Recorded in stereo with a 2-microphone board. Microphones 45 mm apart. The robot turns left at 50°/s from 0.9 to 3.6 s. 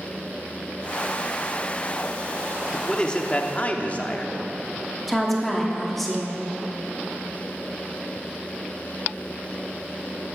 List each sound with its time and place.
2.7 s a man speaking: 165° left, 0.7 m; by 4.4 s 125° left, 0.7 m
5.1 s a woman speaking: centre (ahead or behind), 1.0 m